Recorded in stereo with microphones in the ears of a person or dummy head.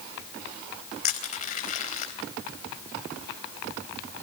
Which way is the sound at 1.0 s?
40° left (ahead or behind).